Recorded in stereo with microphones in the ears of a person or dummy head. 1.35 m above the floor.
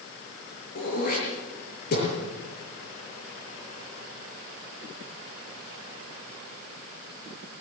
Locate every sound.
0.8 s throat clearing: 45° left (ahead or behind), 7.5 m